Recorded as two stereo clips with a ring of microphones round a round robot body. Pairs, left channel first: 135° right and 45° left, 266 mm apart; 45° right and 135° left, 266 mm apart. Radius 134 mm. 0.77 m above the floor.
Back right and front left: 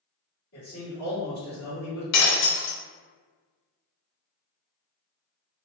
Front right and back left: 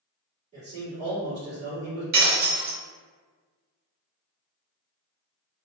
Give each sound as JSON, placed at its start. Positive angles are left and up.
{"t": 0.5, "sound": "a man speaking", "azimuth_deg": -160, "distance_m": 2.0}
{"t": 2.1, "sound": "breaking glass", "azimuth_deg": -165, "distance_m": 0.7}